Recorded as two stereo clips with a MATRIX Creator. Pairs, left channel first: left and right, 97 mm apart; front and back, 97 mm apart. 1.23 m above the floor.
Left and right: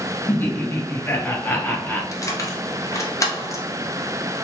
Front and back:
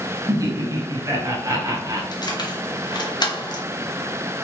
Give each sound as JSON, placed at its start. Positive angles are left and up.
{"t": 0.3, "sound": "laughter", "azimuth_deg": 150, "distance_m": 0.6}
{"t": 2.1, "sound": "keys jangling", "azimuth_deg": 35, "distance_m": 0.6}